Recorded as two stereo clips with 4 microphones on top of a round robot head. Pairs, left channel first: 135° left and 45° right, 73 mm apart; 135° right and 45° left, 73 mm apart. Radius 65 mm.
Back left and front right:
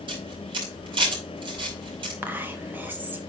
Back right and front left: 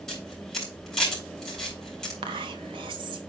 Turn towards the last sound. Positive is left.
turn(degrees=25)